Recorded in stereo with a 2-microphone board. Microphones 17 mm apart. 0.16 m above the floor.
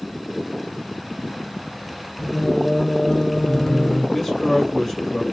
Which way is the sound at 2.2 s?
25° left (ahead or behind).